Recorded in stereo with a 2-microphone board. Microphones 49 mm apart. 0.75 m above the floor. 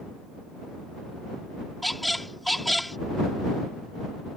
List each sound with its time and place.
1.8 s a squeak: centre (ahead or behind)